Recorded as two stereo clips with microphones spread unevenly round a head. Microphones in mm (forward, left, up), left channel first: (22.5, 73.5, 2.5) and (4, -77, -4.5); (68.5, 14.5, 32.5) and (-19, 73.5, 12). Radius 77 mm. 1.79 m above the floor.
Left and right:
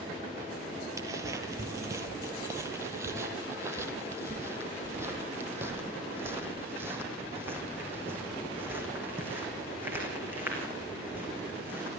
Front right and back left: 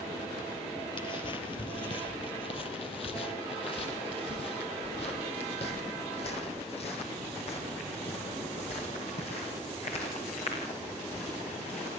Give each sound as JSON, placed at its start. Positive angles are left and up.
{"t": 1.0, "sound": "footsteps", "azimuth_deg": -30, "distance_m": 2.5}